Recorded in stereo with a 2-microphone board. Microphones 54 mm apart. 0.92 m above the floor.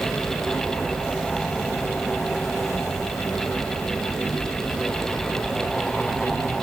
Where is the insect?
70° left (ahead or behind), 4 m.